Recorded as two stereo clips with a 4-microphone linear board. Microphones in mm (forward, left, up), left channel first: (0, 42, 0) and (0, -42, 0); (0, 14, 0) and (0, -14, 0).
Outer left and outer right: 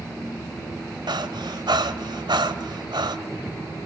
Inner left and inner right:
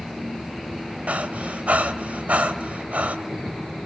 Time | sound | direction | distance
1.1 | breathing | 70° right (ahead or behind) | 1.8 m